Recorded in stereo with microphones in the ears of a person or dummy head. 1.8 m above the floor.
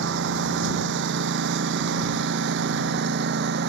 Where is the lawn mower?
65° right (ahead or behind); by 3.7 s 60° right (ahead or behind).